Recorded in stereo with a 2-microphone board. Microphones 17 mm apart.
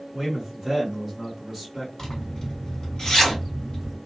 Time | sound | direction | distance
0.1 | a man speaking | 15° right (ahead or behind) | 1.4 m
2.0 | a zipper | 45° left (ahead or behind) | 1.8 m